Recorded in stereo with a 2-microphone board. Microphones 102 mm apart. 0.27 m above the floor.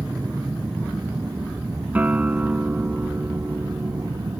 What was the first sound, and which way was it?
An aircraft, 20° right (ahead or behind).